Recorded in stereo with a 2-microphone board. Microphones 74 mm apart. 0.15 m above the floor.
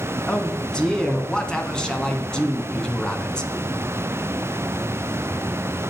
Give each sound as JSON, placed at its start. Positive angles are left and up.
{"t": 0.3, "sound": "a man speaking", "side_deg": 10, "distance_m": 1.1}